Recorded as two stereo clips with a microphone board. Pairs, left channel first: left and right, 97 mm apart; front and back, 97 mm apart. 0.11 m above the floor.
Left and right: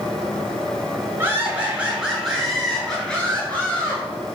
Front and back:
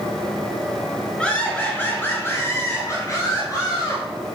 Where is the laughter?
75° right, 1.8 m; by 4.0 s 30° left, 2.5 m.